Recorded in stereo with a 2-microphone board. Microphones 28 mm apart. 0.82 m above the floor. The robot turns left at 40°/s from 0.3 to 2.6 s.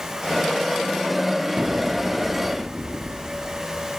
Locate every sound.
1.6 s an explosion: 55° right, 1.8 m; by 3.8 s 95° right, 1.8 m